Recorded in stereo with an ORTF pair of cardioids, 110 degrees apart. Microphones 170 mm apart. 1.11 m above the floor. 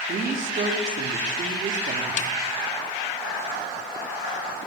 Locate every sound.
0.1 s a woman speaking: 45° right, 3 m
2.2 s a snare drum: 45° left, 0.7 m